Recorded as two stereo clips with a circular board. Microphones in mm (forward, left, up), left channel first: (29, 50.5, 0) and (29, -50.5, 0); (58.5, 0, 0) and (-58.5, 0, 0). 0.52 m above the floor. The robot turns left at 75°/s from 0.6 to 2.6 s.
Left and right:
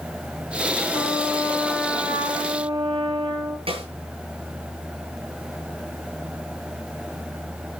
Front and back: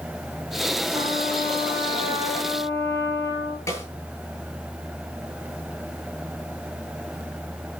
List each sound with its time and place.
0.9 s a trumpet: 60° left, 6 m; by 3.6 s 65° right, 6 m
3.7 s a snare drum: 70° right, 8 m